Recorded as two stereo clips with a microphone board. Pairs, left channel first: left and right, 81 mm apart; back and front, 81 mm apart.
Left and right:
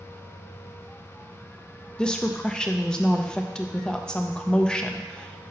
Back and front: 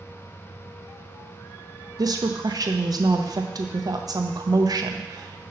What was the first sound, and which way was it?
A woman speaking, 15° left.